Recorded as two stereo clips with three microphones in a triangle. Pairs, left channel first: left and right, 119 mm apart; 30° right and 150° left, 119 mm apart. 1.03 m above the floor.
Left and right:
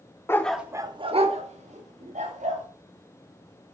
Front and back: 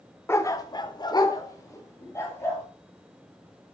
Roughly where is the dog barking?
Ahead left.